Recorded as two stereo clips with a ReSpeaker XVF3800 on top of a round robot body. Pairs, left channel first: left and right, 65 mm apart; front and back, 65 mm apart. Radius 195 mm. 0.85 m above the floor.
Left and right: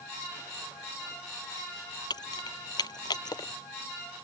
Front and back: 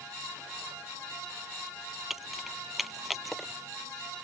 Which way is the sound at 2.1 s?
95° left.